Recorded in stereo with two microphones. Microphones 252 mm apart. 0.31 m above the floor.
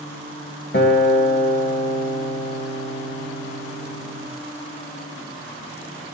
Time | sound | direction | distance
0.7 | a guitar | 45° left (ahead or behind) | 1.5 m